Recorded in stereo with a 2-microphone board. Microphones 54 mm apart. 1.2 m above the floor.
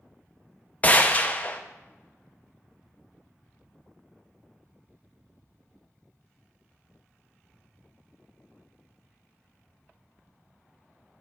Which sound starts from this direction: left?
A gunshot, at 0.8 s.